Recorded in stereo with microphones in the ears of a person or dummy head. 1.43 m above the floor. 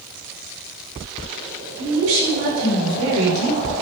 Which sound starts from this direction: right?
A woman speaking, at 1.8 s.